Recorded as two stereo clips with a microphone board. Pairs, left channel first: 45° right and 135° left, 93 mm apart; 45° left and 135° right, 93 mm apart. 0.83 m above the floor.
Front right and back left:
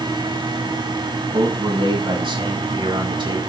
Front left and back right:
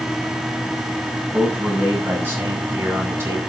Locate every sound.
1.3 s a man speaking: 155° left, 8.5 m; by 3.4 s 165° left, 7.5 m